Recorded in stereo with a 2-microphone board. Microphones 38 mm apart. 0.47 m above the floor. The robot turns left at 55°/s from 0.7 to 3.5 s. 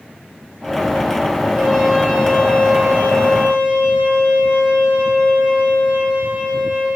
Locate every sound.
1.5 s a trumpet: 160° right, 2.5 m; by 6.9 s 90° left, 2.5 m